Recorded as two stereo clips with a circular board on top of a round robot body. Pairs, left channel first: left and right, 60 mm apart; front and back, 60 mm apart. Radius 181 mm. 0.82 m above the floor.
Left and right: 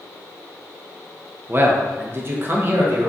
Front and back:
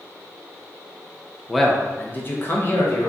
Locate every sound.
1.5 s a man speaking: 95° right, 0.6 m; by 3.1 s 35° right, 1.1 m